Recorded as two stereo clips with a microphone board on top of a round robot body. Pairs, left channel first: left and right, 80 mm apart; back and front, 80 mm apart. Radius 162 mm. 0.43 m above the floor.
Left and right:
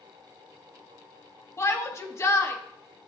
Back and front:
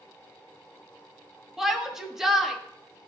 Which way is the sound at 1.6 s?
85° left.